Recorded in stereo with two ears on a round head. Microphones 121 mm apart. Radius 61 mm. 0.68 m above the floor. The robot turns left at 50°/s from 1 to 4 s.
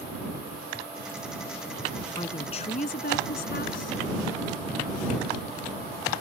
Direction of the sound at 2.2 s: 150° left.